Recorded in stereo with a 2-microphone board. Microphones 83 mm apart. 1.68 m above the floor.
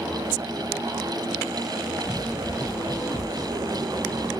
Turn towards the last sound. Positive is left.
turn(degrees=25)  # may be behind; listen again after turning